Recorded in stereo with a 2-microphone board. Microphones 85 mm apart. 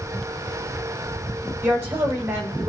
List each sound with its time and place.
1.6 s a woman speaking: 30° right (ahead or behind), 3.5 m; by 2.7 s 40° right (ahead or behind), 3.5 m